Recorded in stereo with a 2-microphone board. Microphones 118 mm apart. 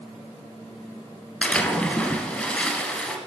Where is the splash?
10° left (ahead or behind), 1.5 m.